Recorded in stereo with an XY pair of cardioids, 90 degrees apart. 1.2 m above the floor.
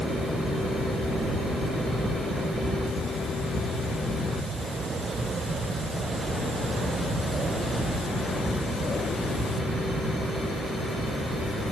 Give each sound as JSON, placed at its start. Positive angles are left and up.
{"t": 0.0, "sound": "a fan", "azimuth_deg": -65, "distance_m": 1.7}